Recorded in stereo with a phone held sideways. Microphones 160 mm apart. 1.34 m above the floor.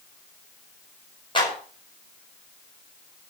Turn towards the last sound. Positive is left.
turn(degrees=30)  # may be behind; listen again after turning